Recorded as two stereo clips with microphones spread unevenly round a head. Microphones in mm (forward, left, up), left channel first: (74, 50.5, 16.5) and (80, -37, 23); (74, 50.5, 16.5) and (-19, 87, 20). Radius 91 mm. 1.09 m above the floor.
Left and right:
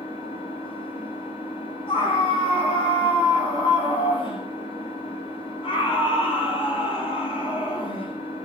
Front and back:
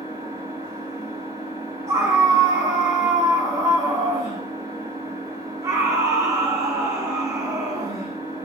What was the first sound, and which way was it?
An engine running, 100° left.